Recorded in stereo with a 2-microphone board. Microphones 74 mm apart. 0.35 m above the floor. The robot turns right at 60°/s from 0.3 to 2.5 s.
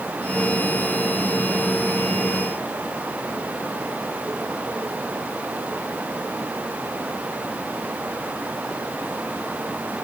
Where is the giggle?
I don't hear a giggle.